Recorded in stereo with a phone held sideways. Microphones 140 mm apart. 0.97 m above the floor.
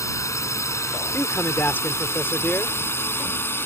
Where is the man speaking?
15° left (ahead or behind).